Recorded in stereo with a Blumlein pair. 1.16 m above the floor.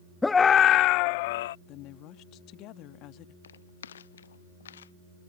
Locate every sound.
0.2 s a scream: 10° left; by 1.6 s 55° left
1.7 s a woman speaking: 40° left
3.4 s footsteps: 65° left